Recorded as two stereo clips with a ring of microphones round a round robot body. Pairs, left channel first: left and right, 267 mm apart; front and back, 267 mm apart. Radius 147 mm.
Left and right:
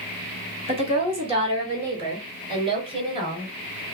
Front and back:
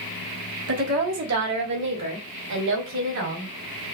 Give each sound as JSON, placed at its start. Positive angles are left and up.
{"t": 0.7, "sound": "a woman speaking", "azimuth_deg": -155, "distance_m": 1.4}